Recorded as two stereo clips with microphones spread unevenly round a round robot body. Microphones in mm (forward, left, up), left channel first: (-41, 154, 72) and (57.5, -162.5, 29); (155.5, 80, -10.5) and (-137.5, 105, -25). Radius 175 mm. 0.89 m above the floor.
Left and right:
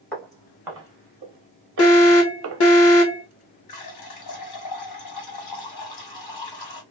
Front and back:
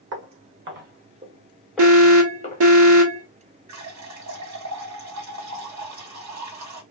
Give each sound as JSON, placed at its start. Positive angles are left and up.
{"t": 0.1, "sound": "footsteps", "azimuth_deg": -175, "distance_m": 1.1}
{"t": 1.8, "sound": "an alarm", "azimuth_deg": 155, "distance_m": 1.3}
{"t": 3.7, "sound": "a running tap", "azimuth_deg": 145, "distance_m": 1.6}